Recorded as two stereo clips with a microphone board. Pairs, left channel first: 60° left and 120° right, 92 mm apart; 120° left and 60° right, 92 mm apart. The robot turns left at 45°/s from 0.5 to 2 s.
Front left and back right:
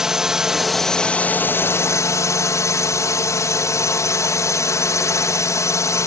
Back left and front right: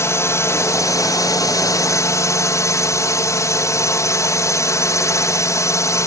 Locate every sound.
0.0 s a drone: 160° left; by 6.1 s 90° left